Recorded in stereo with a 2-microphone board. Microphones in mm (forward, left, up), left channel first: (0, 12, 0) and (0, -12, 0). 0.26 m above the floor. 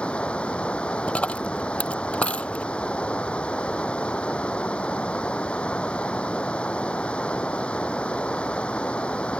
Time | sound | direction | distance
0.0 | running water | 55° left (ahead or behind) | ?
1.1 | a dropped coin | 60° left (ahead or behind) | ?